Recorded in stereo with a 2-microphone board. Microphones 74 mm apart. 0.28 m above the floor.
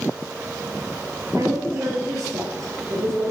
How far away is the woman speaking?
About 5 m.